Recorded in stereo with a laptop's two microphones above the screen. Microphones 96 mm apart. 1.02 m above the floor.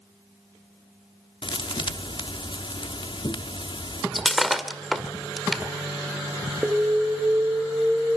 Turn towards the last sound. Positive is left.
turn(degrees=-10)  # may be behind; listen again after turning